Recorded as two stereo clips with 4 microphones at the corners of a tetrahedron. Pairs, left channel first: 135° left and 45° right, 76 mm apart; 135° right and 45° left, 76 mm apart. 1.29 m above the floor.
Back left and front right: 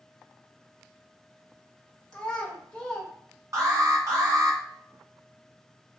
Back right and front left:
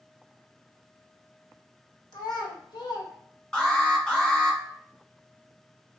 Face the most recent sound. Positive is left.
turn(degrees=-60)